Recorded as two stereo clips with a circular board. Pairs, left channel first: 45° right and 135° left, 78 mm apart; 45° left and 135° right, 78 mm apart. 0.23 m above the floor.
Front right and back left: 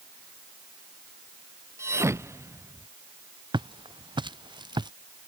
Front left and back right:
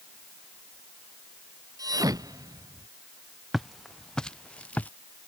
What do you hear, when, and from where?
1.8 s a thud: 170° right
3.5 s footsteps: 135° left; by 4.9 s 115° left